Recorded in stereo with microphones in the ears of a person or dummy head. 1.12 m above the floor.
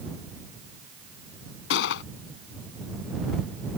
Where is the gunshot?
70° left (ahead or behind).